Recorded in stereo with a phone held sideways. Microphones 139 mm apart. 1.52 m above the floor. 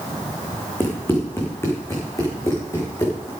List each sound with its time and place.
0.8 s running footsteps: 15° left (ahead or behind), 4 m; by 3.3 s 25° left (ahead or behind), 5.5 m